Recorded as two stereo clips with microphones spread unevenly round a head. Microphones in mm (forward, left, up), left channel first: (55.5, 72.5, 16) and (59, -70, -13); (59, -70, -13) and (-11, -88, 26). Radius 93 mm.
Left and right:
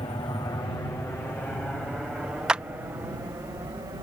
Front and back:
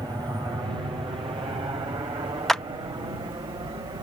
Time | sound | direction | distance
0.0 | an aircraft | 135° left | ?
2.5 | a clap | 170° left | ?